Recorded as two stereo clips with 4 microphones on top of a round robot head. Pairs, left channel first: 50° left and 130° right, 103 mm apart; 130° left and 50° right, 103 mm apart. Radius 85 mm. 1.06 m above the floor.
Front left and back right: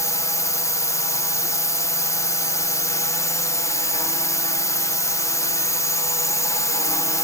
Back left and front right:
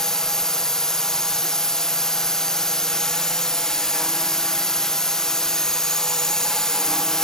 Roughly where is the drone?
Ahead left.